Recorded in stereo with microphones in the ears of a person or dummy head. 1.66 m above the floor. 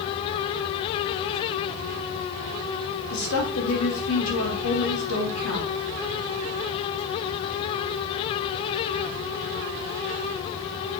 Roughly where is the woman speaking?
Left.